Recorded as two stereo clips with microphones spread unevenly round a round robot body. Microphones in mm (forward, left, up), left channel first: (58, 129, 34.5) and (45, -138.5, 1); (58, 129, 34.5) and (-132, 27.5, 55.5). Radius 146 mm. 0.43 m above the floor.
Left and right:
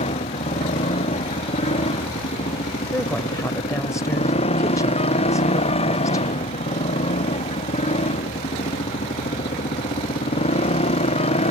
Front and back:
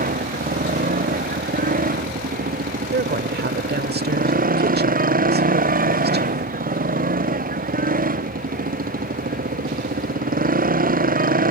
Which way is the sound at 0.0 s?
160° left.